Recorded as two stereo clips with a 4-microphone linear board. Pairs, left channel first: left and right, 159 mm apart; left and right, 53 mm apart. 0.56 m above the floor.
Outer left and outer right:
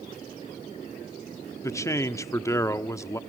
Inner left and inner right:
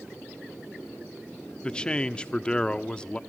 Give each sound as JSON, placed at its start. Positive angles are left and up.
{"t": 1.6, "sound": "a man speaking", "side_deg": 20, "distance_m": 1.0}